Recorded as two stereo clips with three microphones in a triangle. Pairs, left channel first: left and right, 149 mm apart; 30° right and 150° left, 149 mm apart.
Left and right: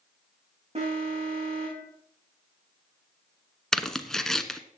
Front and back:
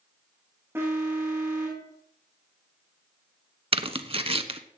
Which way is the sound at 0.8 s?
135° right.